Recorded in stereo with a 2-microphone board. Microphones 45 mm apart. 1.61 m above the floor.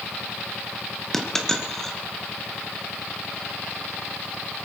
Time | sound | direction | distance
1.1 | a dropped coin | 10° left (ahead or behind) | 1.7 m